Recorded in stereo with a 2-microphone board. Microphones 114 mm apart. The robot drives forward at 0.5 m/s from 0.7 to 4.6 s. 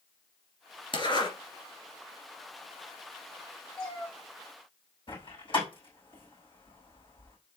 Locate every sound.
0.9 s a zipper: 45° left (ahead or behind), 2 m
3.8 s a cat meowing: 5° left (ahead or behind), 1.9 m
5.1 s a door slam: 50° left (ahead or behind), 5 m